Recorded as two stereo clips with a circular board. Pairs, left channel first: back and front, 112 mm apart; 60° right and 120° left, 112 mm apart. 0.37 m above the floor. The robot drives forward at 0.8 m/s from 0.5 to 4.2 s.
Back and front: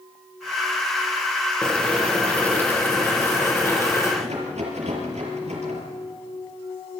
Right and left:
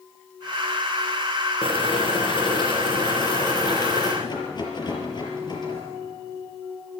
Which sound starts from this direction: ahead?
A rattle, at 4.2 s.